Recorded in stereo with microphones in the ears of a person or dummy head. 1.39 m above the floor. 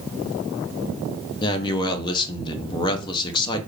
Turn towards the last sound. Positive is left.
turn(degrees=25)  # may be behind; listen again after turning